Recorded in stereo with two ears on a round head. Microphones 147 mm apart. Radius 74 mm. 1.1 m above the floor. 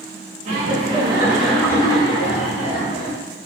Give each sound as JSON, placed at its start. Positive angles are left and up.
{"t": 0.5, "sound": "laughter", "side_deg": -45, "distance_m": 0.7}